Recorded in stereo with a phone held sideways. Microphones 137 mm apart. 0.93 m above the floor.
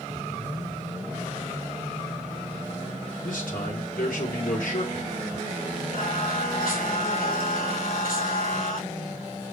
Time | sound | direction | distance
3.2 | a man speaking | 80° left | 3 m
5.9 | singing | 85° left | 5 m